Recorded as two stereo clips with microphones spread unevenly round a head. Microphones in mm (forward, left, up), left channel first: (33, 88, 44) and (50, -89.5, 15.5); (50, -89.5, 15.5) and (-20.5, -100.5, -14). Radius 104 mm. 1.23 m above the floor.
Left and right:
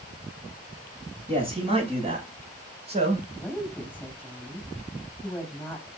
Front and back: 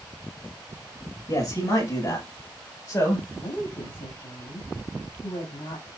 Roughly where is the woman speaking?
Ahead.